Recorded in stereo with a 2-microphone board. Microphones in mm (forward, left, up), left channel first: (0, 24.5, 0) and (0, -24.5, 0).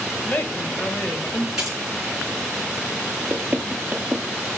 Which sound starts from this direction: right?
Knocking, at 3.3 s.